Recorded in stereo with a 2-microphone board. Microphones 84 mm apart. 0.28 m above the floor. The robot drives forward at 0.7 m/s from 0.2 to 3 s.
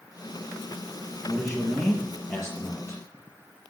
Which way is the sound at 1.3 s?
10° left (ahead or behind).